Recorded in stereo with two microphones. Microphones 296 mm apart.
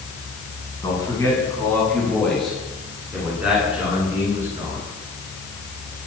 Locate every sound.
0.8 s a man speaking: 15° left (ahead or behind), 9 m; by 4.8 s 10° right (ahead or behind), 13 m